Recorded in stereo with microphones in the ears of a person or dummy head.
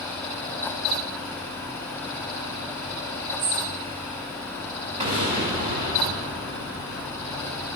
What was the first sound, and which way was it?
A bird, 45° right (ahead or behind).